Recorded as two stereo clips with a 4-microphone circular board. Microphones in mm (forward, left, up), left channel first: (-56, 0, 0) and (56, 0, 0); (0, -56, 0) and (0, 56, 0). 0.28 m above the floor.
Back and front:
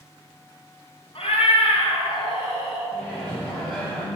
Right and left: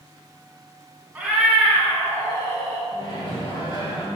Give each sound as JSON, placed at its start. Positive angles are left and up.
{"t": 1.1, "sound": "a cat meowing", "azimuth_deg": 165, "distance_m": 1.2}
{"t": 2.9, "sound": "a microwave", "azimuth_deg": -105, "distance_m": 1.8}